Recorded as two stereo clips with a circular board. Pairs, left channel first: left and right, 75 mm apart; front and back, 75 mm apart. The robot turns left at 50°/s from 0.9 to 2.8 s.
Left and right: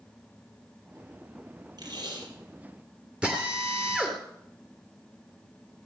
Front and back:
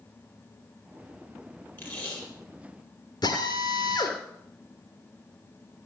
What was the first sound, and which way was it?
Tape being pulled, 60° right.